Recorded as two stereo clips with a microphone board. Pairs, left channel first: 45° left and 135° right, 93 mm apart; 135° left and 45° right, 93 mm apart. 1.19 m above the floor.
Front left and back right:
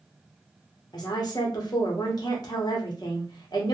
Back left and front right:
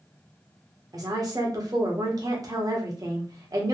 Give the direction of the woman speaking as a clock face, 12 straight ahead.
12 o'clock.